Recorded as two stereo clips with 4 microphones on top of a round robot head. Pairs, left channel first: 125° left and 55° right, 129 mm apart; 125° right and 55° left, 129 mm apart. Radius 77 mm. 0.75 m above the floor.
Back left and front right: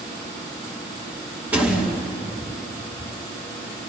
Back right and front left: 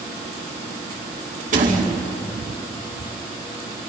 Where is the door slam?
25° left, 4.5 m.